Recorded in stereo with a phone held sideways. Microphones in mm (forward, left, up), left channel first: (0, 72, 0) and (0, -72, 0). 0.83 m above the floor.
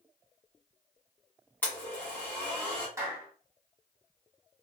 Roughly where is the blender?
Centre.